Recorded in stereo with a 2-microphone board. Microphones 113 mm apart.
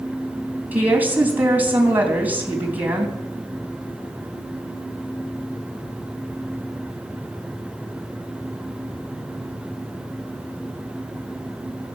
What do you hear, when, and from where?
0.7 s a woman speaking: 15° right (ahead or behind), 3.5 m